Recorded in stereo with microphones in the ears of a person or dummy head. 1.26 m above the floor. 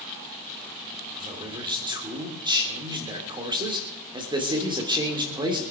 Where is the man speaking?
25° right (ahead or behind), 3 m.